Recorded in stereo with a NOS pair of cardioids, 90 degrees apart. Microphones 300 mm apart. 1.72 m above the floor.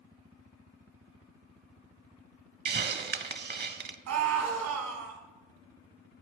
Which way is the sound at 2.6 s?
35° right.